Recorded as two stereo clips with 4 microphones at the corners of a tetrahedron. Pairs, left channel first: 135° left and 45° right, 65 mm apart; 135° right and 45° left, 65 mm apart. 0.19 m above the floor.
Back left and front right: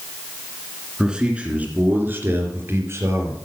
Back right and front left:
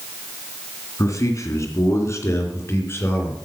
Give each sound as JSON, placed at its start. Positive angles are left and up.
{"t": 1.0, "sound": "a man speaking", "azimuth_deg": -120, "distance_m": 2.5}